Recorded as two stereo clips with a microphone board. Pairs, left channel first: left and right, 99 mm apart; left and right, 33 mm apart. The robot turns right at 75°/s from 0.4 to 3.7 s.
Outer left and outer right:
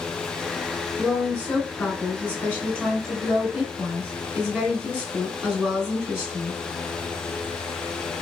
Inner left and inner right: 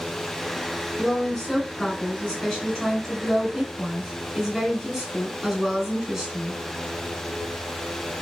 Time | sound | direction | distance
1.0 | a woman speaking | 5° left (ahead or behind) | 1.7 m